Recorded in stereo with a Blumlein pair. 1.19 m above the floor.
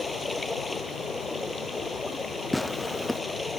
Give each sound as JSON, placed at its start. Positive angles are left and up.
{"t": 0.0, "sound": "running water", "azimuth_deg": 10}
{"t": 2.5, "sound": "tearing paper", "azimuth_deg": 0}